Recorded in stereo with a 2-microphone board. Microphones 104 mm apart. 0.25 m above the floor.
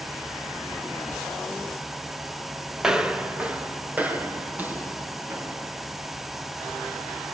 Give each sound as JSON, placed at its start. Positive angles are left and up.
{"t": 2.8, "sound": "footsteps", "side_deg": -5, "distance_m": 2.0}